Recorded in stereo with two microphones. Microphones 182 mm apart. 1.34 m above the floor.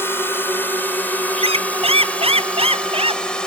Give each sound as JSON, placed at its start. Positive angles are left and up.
{"t": 0.0, "sound": "a drone", "side_deg": 10}
{"t": 1.4, "sound": "a squeak", "side_deg": -35}